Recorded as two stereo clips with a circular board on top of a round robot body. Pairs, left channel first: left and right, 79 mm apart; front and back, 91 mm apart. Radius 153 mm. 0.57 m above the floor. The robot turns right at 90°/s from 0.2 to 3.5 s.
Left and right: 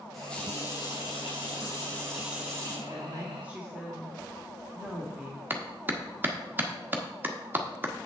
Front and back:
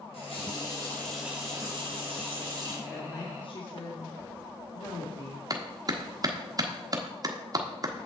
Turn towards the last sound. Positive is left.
turn(degrees=-145)